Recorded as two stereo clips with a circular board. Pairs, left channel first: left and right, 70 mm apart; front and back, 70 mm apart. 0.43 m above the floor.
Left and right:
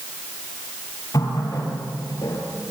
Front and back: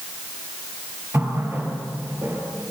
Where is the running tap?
125° left, 6.5 m.